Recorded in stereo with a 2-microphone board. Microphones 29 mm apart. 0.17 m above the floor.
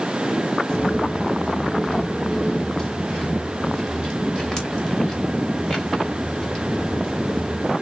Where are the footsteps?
30° left (ahead or behind), 0.6 m; by 7.7 s 25° left (ahead or behind), 4.5 m.